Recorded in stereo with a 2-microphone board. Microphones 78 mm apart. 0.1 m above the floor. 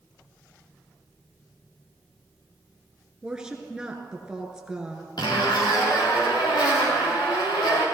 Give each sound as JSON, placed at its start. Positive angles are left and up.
{"t": 3.2, "sound": "a woman speaking", "side_deg": -10, "distance_m": 1.7}
{"t": 5.2, "sound": "a zipper", "side_deg": 70, "distance_m": 4.5}